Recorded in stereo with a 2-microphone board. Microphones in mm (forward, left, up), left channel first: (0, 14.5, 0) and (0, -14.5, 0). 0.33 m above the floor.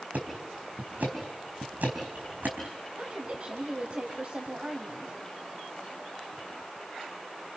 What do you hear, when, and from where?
0.1 s ticking: 65° right (ahead or behind), 4.5 m
3.0 s a woman speaking: 50° right (ahead or behind), 2 m